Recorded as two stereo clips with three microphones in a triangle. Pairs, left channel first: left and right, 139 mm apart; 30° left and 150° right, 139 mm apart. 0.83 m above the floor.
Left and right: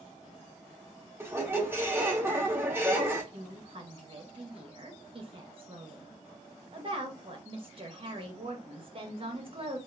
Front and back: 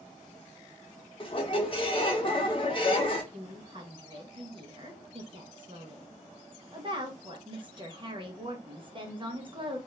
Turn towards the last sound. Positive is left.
turn(degrees=-115)